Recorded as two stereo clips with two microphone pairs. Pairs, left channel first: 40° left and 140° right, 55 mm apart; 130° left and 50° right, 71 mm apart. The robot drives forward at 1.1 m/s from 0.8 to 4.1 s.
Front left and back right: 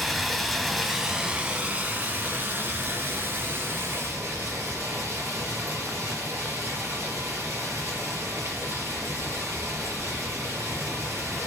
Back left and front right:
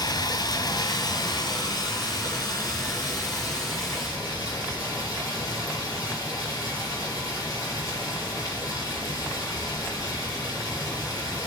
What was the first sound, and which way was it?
Running water, 125° left.